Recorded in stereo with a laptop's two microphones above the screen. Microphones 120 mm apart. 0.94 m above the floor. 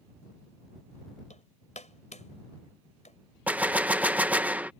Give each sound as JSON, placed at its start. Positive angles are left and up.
{"t": 1.3, "sound": "hammering", "side_deg": 80}
{"t": 3.5, "sound": "a gunshot", "side_deg": -10}